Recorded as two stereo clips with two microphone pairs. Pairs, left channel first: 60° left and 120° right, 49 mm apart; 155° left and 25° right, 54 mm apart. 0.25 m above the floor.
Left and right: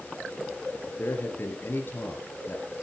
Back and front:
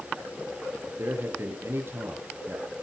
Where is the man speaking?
20° left, 4.5 m.